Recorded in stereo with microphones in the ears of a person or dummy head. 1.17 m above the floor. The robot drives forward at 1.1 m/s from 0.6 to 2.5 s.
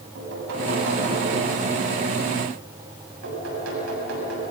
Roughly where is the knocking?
Right.